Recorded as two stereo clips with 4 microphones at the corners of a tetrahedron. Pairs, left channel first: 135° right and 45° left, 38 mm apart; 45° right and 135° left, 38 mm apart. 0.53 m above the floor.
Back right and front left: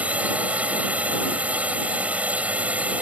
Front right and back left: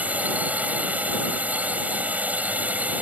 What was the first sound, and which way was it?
A drone, 95° left.